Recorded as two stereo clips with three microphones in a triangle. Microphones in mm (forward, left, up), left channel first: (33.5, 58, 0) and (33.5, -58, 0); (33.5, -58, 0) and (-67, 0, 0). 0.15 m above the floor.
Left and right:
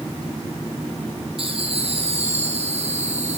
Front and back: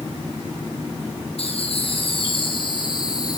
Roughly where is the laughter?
Ahead right.